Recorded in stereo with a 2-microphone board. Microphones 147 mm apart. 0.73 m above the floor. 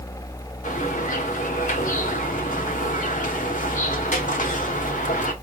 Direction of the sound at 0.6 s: 65° left (ahead or behind).